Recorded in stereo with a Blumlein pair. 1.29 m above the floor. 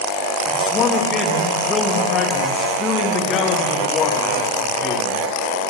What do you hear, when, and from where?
0.5 s a man speaking: 20° left, 2 m